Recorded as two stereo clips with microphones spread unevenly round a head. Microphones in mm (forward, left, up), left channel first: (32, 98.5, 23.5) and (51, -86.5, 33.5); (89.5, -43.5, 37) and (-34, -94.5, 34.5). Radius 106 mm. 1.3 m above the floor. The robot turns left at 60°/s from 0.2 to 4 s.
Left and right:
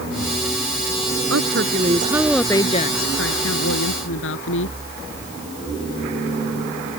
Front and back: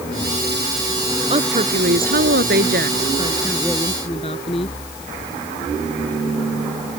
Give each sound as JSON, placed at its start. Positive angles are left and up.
{"t": 1.3, "sound": "a woman speaking", "azimuth_deg": -115}